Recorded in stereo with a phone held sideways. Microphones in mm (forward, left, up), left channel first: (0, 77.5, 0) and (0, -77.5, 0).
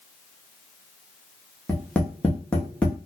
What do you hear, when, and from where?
1.7 s tapping: 5° left (ahead or behind), 0.7 m